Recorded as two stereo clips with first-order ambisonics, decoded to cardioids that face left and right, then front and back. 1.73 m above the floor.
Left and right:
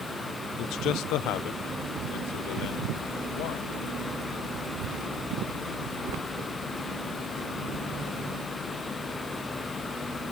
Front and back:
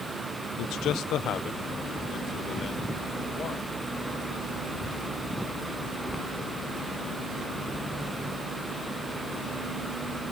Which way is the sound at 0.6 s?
40° left.